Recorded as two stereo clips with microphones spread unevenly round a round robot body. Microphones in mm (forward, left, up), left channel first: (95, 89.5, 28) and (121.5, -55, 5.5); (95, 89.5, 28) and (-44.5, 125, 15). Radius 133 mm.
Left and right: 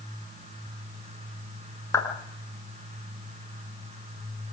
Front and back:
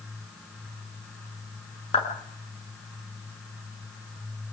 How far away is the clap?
About 7 m.